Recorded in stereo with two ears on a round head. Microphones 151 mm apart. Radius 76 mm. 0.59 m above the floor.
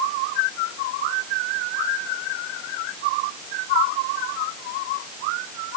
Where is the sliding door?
No sliding door in this recording.